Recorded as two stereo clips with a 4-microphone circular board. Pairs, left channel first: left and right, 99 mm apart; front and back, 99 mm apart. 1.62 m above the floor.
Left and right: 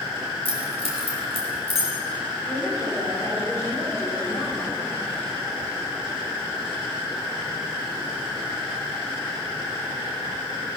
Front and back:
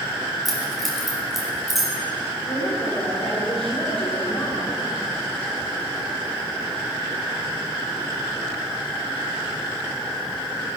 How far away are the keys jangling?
About 6 m.